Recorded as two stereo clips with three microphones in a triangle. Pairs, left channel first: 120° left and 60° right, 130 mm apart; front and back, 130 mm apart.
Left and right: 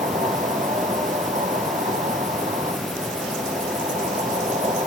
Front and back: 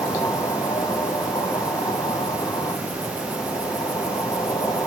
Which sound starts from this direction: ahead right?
An insect, at 0.0 s.